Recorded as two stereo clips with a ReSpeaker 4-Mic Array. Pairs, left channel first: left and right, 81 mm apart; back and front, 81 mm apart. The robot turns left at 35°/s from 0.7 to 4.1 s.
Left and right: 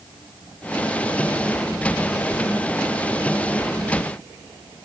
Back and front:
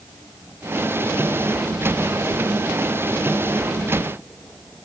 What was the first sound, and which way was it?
Only background noise.